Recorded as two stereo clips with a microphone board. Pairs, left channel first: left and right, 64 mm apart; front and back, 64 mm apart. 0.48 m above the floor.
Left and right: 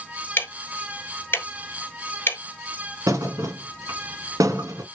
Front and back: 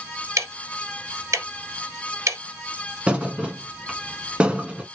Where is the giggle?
No giggle in this recording.